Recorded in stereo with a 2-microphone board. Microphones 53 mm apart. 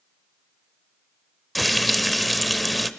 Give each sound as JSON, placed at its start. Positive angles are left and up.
{"t": 1.6, "sound": "frying", "side_deg": 0, "distance_m": 0.6}